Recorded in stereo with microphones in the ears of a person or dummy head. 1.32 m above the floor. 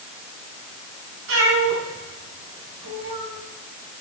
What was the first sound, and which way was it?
A cat meowing, 70° right (ahead or behind).